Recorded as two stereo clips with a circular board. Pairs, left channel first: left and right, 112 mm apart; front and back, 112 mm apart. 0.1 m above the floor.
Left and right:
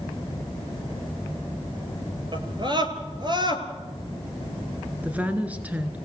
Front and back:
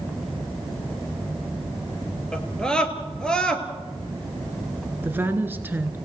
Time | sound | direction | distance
2.3 | a scream | 80° right | 2 m
5.0 | a woman speaking | 140° right | 1.5 m